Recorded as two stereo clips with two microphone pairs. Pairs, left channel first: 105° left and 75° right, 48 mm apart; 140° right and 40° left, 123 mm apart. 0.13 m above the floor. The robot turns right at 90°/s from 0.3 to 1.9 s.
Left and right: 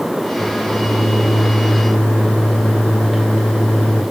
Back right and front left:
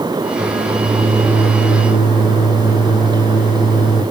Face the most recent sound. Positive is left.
turn(degrees=170)